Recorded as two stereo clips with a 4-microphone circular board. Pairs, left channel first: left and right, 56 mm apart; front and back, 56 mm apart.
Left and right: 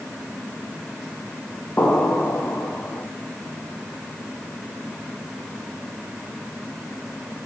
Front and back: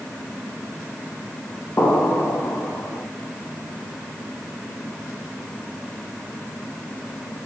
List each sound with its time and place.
1.8 s an explosion: 40° left, 1.4 m